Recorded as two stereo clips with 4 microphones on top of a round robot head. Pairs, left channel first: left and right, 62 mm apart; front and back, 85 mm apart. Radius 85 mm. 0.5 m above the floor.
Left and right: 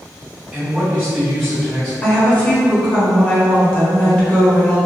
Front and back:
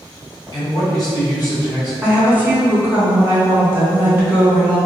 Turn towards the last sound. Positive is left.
turn(degrees=135)